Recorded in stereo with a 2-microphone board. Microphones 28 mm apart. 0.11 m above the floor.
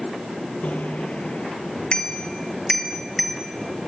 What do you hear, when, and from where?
0.6 s a bicycle bell: 60° left (ahead or behind), 2 m; by 3.9 s 10° right (ahead or behind), 2 m